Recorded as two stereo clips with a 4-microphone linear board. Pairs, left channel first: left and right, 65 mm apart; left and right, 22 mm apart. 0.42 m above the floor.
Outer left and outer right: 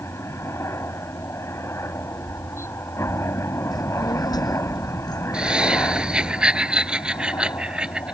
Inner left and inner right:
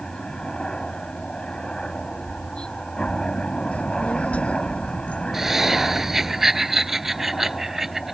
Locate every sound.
0.0 s a helicopter: 40° left (ahead or behind)
3.7 s a child speaking: 85° left
5.3 s laughter: 15° right (ahead or behind)